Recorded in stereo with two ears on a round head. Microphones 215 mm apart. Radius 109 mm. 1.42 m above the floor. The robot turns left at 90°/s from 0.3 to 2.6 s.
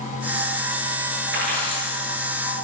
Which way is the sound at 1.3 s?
120° right.